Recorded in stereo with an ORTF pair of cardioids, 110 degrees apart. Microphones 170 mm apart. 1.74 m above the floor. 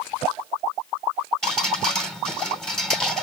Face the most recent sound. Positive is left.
turn(degrees=0)